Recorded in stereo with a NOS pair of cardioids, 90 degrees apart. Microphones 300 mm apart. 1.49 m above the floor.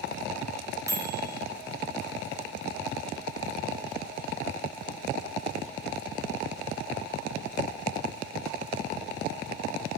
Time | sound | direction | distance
0.9 | a microwave | 10° right | 0.7 m